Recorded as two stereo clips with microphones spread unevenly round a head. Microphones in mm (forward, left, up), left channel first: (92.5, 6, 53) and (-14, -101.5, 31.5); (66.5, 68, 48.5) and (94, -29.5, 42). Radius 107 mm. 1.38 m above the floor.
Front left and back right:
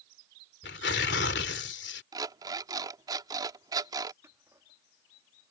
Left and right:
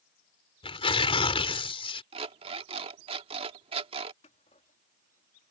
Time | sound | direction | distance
0.6 | tearing paper | 75° left | ?
2.1 | an alarm clock | 70° right | ?
4.2 | scissors | 145° left | ?